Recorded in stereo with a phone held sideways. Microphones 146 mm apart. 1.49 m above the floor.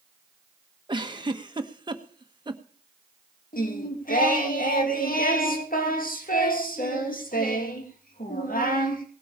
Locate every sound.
0.9 s a giggle: 30° right (ahead or behind), 1.2 m
3.5 s singing: 75° left (ahead or behind), 2.5 m